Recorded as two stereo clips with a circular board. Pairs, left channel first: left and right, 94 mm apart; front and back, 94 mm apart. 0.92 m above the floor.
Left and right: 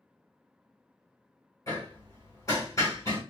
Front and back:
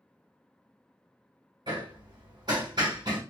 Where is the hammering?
145° left, 1.8 m.